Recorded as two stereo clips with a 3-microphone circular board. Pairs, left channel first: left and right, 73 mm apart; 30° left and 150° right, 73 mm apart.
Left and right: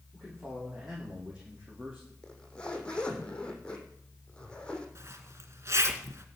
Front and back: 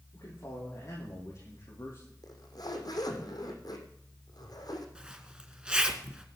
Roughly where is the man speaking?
Ahead.